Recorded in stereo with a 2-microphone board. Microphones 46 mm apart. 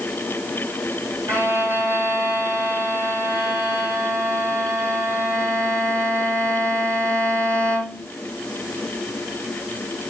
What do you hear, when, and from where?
1.3 s a violin: 85° right, 2 m